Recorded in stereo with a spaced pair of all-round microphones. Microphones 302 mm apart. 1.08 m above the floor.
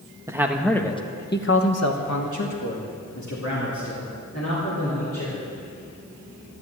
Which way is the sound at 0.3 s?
10° right (ahead or behind).